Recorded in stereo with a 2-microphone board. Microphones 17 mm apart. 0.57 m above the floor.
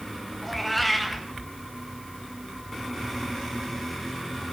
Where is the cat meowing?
5° left (ahead or behind), 1.3 m.